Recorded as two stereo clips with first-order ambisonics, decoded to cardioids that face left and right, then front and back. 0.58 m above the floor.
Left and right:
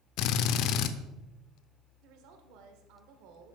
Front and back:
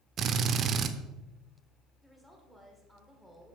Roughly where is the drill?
Behind left.